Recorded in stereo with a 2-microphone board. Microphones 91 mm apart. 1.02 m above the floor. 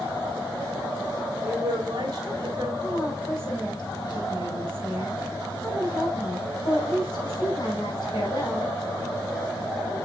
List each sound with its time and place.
1.4 s a woman speaking: 45° right (ahead or behind), 3.5 m
2.8 s a woman speaking: 55° left (ahead or behind), 4 m